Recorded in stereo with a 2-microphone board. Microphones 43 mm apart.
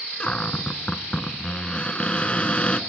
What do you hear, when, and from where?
0.2 s a cupboard door: 25° left (ahead or behind), 0.8 m